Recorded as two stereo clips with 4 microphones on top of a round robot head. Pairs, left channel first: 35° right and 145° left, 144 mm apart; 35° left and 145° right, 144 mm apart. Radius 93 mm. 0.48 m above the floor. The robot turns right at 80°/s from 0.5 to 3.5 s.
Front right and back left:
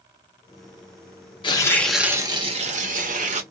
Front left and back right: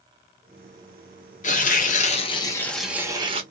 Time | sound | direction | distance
1.4 | tearing paper | 15° left | 1.1 m